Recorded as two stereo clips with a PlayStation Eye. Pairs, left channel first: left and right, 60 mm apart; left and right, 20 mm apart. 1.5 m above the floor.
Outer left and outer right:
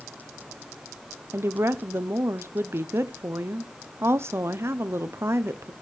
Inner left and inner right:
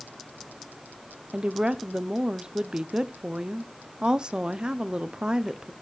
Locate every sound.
1.3 s a woman speaking: 45° right (ahead or behind), 0.6 m